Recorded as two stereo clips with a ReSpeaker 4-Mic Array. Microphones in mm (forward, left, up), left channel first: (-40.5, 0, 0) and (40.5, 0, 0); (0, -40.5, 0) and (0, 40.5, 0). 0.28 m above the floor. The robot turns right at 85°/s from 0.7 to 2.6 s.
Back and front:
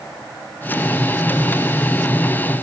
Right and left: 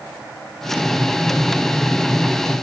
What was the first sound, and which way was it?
Only background noise.